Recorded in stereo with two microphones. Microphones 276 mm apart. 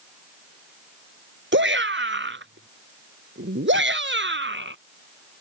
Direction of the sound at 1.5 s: 45° right (ahead or behind).